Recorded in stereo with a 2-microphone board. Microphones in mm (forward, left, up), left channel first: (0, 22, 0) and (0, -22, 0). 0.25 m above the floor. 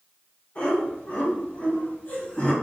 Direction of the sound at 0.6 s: 30° left (ahead or behind).